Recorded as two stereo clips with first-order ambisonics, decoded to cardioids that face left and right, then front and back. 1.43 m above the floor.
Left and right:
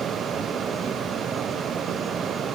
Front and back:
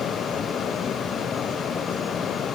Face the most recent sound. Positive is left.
No sound to turn to.